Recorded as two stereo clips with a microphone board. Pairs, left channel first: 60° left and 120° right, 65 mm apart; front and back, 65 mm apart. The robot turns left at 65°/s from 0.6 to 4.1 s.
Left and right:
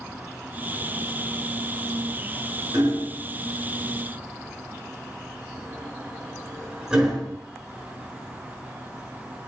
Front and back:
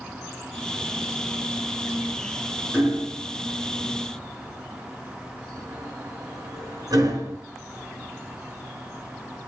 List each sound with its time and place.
2.7 s hammering: 110° right, 5 m; by 7.4 s 160° left, 5 m